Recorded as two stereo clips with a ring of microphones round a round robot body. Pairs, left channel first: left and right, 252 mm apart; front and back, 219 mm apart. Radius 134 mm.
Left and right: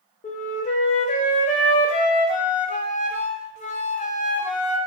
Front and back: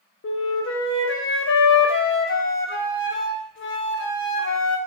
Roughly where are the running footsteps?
I don't hear running footsteps.